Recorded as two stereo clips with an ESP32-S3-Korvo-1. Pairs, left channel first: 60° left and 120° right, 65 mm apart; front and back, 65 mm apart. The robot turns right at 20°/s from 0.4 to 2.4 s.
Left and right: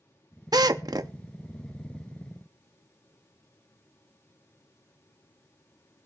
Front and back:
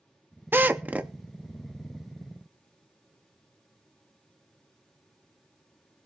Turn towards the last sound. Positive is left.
turn(degrees=-85)